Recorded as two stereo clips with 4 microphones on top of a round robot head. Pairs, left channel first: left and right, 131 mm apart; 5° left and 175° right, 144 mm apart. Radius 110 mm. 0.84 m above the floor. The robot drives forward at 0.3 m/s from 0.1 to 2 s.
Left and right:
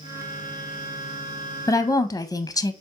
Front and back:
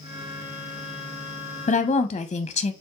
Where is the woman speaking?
25° left, 0.6 m; by 2.7 s 35° left, 0.5 m.